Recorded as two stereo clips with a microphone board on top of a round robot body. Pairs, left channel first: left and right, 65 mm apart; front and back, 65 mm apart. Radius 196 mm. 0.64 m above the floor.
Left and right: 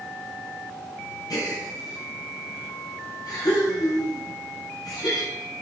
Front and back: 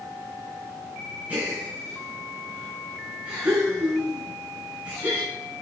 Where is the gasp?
110° left, 4 m.